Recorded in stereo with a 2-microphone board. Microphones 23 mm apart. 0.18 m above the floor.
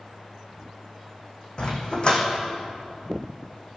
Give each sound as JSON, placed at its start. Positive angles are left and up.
{"t": 1.6, "sound": "a dog barking", "side_deg": 40, "distance_m": 2.5}